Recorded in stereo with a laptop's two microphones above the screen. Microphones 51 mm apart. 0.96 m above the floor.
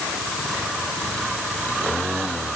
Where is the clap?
I don't hear a clap.